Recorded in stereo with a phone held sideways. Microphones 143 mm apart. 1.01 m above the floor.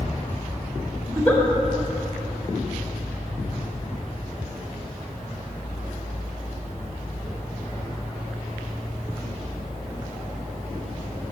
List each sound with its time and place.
1.1 s a giggle: 10° left (ahead or behind), 1.8 m